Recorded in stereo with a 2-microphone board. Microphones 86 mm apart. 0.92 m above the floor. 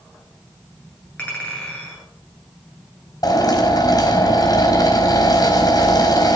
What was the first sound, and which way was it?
A clink, 15° left (ahead or behind).